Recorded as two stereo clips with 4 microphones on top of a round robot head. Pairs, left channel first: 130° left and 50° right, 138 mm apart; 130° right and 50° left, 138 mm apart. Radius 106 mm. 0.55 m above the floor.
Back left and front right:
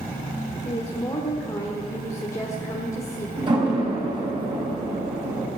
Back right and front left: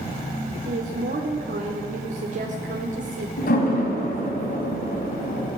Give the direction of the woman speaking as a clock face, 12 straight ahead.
10 o'clock.